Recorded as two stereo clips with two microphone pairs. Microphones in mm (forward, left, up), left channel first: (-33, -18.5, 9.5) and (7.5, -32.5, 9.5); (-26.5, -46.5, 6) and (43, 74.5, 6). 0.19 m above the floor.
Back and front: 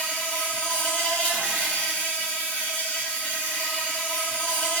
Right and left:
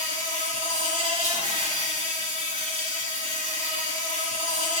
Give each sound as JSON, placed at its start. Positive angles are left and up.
{"t": 0.0, "sound": "an insect", "azimuth_deg": 105, "distance_m": 2.0}